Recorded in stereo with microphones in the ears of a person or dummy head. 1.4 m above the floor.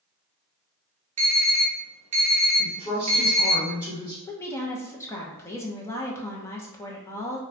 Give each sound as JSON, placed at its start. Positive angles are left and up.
{"t": 1.2, "sound": "an alarm", "side_deg": -30, "distance_m": 1.1}
{"t": 2.6, "sound": "a woman speaking", "side_deg": 30, "distance_m": 1.1}
{"t": 4.2, "sound": "a woman speaking", "side_deg": 15, "distance_m": 0.6}